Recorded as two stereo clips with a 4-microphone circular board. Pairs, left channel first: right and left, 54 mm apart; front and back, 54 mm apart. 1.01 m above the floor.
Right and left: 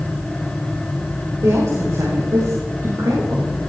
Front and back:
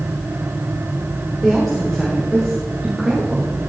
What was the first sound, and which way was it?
A woman speaking, 85° left.